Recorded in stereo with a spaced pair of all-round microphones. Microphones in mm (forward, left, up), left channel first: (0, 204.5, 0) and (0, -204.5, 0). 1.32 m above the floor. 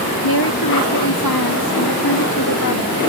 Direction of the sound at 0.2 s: 65° left (ahead or behind).